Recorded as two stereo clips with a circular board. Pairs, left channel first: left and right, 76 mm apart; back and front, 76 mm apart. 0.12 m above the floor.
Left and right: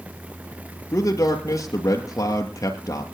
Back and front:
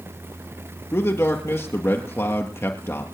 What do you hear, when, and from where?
0.9 s a man speaking: 130° left, 2 m